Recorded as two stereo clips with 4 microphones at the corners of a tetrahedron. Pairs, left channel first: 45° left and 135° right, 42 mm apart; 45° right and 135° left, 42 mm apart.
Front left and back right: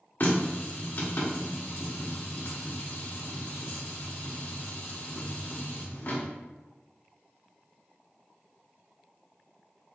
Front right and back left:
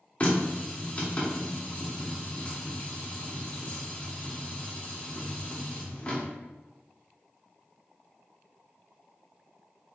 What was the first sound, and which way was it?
A running tap, 15° left.